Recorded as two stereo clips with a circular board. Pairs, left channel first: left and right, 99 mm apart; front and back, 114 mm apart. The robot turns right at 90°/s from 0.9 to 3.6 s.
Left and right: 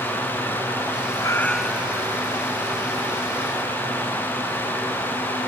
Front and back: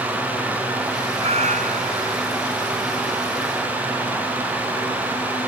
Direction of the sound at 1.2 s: 145° left.